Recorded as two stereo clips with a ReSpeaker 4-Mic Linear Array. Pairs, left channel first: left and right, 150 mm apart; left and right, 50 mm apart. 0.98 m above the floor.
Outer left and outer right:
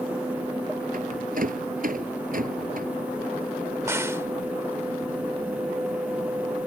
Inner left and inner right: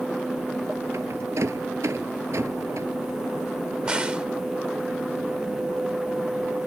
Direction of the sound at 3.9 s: 15° right (ahead or behind).